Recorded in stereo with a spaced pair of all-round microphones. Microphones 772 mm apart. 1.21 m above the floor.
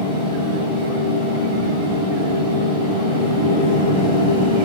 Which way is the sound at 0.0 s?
5° right (ahead or behind).